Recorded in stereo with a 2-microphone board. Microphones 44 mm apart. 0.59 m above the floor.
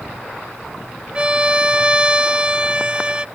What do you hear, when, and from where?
1.1 s a violin: 25° right (ahead or behind)